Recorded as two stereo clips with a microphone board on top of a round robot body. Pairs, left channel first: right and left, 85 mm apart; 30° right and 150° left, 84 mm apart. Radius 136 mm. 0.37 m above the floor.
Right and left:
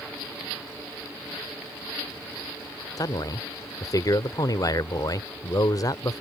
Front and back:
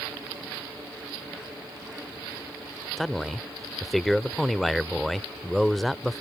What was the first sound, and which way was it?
A man speaking, 120° right.